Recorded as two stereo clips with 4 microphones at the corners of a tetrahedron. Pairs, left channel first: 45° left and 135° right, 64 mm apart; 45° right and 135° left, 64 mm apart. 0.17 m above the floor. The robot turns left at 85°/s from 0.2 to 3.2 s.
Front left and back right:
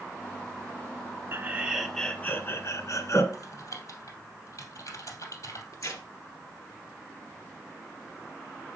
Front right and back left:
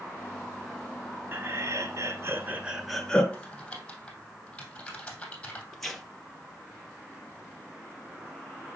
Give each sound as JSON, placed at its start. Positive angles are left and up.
{"t": 1.3, "sound": "laughter", "azimuth_deg": -175, "distance_m": 1.9}
{"t": 3.3, "sound": "typing on a keyboard", "azimuth_deg": 25, "distance_m": 2.5}
{"t": 5.7, "sound": "tearing paper", "azimuth_deg": 40, "distance_m": 2.5}